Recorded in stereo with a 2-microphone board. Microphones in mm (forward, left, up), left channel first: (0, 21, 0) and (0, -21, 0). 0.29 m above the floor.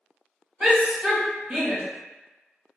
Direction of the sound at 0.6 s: 30° right (ahead or behind).